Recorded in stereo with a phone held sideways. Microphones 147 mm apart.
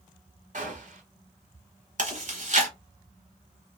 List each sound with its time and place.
0.5 s a gunshot: 55° right (ahead or behind), 1.1 m
2.0 s chewing: 55° right (ahead or behind), 1.0 m